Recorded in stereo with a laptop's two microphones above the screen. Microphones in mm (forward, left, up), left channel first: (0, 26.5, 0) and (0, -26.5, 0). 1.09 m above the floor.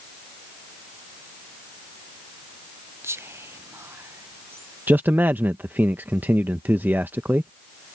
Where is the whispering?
55° right (ahead or behind).